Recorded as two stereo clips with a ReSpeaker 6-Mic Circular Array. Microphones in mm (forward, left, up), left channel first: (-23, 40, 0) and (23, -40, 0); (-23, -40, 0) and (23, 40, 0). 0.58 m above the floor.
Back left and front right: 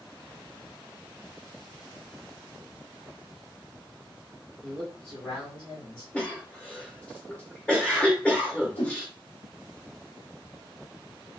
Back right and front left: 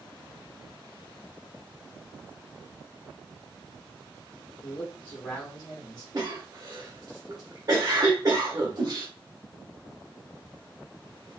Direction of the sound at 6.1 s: 50° left.